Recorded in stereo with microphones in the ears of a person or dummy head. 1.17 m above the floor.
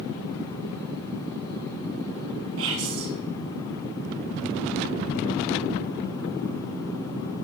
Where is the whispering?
65° right (ahead or behind), 1.8 m.